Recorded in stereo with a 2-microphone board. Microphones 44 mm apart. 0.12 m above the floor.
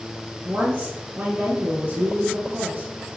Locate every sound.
0.5 s a woman speaking: 45° right (ahead or behind), 2.5 m